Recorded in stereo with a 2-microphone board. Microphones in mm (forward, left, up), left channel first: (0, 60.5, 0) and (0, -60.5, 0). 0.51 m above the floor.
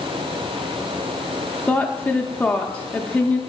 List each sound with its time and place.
1.7 s a woman speaking: 10° left (ahead or behind), 0.7 m